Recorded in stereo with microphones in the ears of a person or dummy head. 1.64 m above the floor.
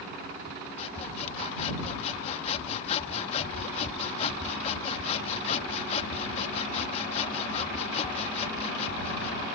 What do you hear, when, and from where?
0.8 s sawing: 35° left (ahead or behind)